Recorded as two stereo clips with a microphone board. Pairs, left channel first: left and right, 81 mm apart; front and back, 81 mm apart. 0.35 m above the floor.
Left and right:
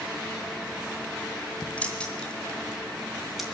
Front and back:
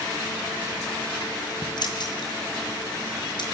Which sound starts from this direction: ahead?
Keys jangling, at 1.8 s.